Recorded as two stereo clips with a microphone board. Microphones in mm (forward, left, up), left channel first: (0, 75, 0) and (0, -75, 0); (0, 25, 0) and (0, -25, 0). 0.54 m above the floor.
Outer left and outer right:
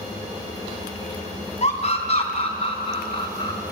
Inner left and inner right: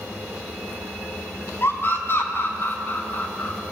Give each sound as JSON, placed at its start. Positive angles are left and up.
{"t": 1.6, "sound": "a scream", "side_deg": 45, "distance_m": 4.0}